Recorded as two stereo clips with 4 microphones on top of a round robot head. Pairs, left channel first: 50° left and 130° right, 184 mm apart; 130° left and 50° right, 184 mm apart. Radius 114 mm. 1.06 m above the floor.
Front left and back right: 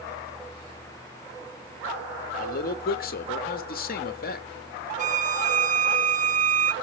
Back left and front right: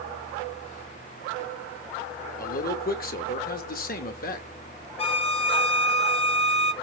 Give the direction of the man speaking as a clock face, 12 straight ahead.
9 o'clock.